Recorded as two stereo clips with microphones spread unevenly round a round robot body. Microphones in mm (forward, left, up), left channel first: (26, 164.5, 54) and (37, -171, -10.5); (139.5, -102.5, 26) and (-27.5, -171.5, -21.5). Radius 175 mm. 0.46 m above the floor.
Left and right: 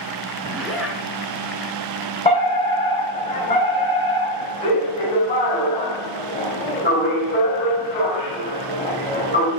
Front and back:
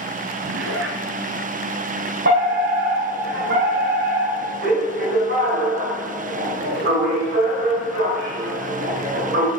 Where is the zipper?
Straight behind, 2.5 m.